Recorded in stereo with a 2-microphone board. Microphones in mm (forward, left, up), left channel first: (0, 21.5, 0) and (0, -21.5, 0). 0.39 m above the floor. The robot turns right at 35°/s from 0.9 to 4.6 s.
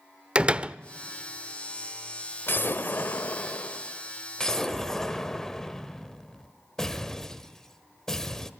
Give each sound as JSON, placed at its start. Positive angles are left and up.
{"t": 0.3, "sound": "a door slam", "side_deg": -25, "distance_m": 0.5}
{"t": 2.5, "sound": "an explosion", "azimuth_deg": 90, "distance_m": 1.3}